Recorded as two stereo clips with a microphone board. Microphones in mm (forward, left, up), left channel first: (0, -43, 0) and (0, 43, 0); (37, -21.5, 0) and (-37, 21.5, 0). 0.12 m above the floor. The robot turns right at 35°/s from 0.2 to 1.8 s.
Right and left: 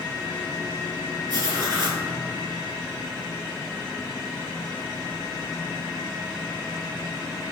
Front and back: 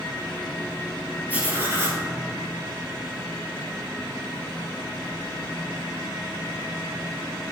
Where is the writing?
80° left, 2.5 m; by 2.0 s 100° left, 2.5 m.